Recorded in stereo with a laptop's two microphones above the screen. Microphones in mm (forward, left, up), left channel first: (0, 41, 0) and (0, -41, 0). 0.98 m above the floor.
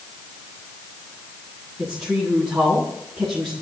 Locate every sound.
1.8 s a woman speaking: 5° right (ahead or behind), 9 m